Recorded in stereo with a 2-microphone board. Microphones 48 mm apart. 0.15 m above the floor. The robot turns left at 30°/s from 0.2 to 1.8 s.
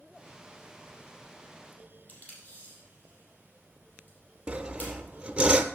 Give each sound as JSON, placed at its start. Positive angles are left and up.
{"t": 2.1, "sound": "tape being pulled", "side_deg": 30, "distance_m": 5.0}
{"t": 4.5, "sound": "sawing", "side_deg": -20, "distance_m": 0.6}